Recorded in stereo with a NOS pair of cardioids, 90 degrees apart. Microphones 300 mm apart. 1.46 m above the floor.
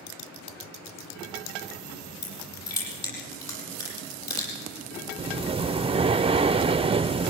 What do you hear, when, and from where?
2.2 s crushing: 65° left, 9 m
5.2 s breathing: 20° right, 0.5 m